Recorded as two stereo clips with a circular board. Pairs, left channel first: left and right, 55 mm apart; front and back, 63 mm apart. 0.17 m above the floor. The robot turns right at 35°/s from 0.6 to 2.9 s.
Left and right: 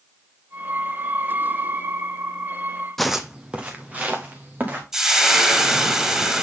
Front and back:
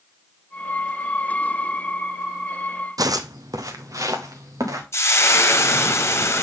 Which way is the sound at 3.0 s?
175° left.